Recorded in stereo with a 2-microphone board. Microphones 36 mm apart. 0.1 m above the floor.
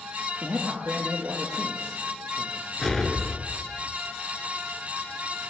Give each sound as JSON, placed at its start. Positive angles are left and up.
{"t": 0.4, "sound": "a man speaking", "side_deg": -65, "distance_m": 2.0}
{"t": 2.8, "sound": "an explosion", "side_deg": 5, "distance_m": 0.8}